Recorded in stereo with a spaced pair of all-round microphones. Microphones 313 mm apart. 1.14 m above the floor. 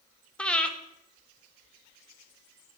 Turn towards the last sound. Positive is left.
turn(degrees=5)  # may be behind; listen again after turning